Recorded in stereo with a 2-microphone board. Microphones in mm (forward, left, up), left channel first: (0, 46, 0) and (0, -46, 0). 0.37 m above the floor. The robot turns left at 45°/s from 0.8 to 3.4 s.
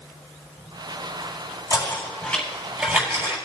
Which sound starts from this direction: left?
Knocking, at 1.7 s.